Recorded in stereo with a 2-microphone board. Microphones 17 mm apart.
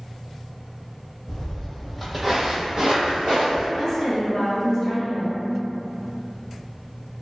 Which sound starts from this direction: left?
Footsteps, at 1.3 s.